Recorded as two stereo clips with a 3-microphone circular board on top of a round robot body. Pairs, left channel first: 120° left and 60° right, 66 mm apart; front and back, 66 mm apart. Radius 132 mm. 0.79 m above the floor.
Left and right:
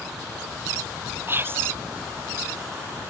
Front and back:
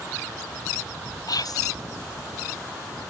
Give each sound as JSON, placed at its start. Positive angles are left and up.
{"t": 1.3, "sound": "whispering", "azimuth_deg": -5}